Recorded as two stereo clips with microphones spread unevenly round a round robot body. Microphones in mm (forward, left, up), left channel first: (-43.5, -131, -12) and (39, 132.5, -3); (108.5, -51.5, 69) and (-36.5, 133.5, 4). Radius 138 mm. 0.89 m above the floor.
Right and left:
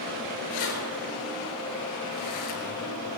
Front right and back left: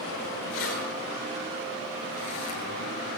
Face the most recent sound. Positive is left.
turn(degrees=-80)